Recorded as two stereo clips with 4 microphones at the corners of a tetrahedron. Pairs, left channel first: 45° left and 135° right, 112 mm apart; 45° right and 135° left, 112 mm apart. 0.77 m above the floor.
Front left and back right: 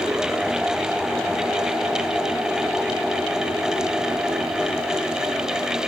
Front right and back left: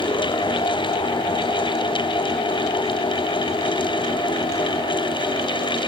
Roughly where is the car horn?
No car horn in this recording.